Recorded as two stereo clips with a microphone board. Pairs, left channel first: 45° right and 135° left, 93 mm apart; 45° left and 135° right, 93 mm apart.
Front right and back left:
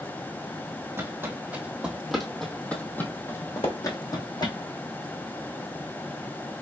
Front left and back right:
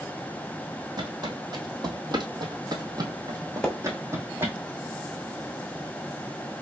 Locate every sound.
1.0 s footsteps: 165° right, 1.9 m; by 4.5 s 75° right, 1.9 m
3.6 s a splash: 35° right, 1.3 m